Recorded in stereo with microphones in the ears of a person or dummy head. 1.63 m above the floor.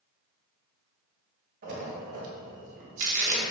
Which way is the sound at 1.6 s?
50° right (ahead or behind).